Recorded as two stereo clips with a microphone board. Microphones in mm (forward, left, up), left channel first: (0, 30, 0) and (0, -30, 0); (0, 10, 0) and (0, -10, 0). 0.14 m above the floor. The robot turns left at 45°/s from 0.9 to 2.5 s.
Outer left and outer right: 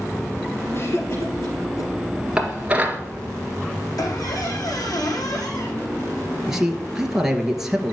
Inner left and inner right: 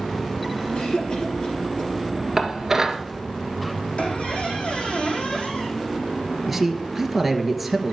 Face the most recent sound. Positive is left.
turn(degrees=-5)  # may be behind; listen again after turning